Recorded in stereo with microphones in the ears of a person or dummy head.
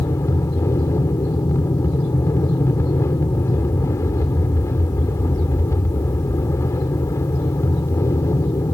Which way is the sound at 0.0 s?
15° left (ahead or behind).